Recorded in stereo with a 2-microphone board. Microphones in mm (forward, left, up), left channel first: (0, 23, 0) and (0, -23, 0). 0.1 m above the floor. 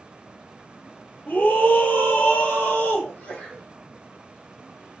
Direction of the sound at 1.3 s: 40° left (ahead or behind).